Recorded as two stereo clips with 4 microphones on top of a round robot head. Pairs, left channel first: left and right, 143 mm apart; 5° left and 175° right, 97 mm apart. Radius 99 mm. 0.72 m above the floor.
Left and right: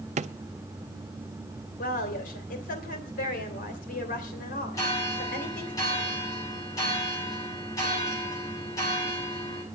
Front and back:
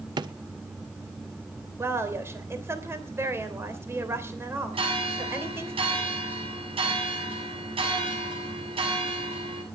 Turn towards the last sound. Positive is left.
turn(degrees=160)